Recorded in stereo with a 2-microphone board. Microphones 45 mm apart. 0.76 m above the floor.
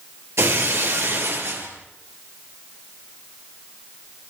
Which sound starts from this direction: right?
Breaking glass, at 0.4 s.